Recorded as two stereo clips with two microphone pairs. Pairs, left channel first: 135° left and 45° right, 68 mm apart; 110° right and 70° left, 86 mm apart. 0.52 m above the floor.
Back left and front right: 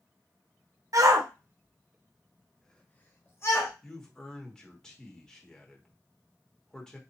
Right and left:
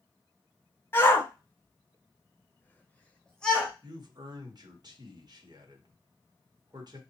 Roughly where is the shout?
Ahead right.